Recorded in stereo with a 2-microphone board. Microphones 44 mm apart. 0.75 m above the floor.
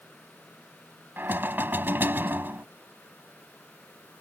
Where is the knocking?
50° right (ahead or behind).